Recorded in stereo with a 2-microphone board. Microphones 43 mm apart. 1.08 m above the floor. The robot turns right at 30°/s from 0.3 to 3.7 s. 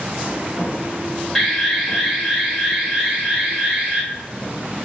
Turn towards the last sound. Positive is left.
turn(degrees=-25)  # may be behind; listen again after turning